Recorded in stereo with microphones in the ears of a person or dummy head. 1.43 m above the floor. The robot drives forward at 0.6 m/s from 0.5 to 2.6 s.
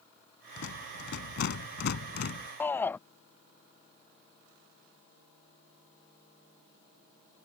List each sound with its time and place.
0.6 s a rattle: 70° left (ahead or behind); by 2.5 s 60° left (ahead or behind)
2.6 s a shout: 15° left (ahead or behind)